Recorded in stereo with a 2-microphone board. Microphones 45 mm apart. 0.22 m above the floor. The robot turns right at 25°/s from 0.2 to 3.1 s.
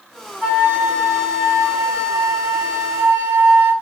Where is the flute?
150° left, 1.9 m; by 3.7 s 145° right, 1.9 m.